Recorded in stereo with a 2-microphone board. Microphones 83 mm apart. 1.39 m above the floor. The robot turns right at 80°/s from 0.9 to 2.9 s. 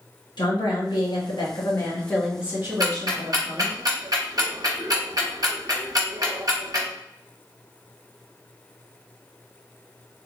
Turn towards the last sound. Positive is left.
turn(degrees=-50)  # may be behind; listen again after turning